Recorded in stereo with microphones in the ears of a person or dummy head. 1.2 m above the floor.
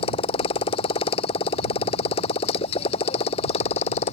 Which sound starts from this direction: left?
A motorcycle, at 0.0 s.